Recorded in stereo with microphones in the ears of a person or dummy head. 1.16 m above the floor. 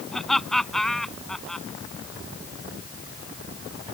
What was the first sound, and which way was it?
Laughter, 5° right (ahead or behind).